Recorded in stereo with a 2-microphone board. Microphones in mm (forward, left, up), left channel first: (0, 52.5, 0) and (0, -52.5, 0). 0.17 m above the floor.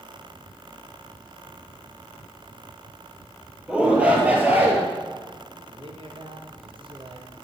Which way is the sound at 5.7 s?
60° right (ahead or behind).